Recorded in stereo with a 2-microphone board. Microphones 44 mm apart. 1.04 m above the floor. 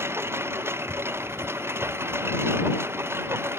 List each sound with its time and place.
0.0 s a lawn mower: 65° right (ahead or behind)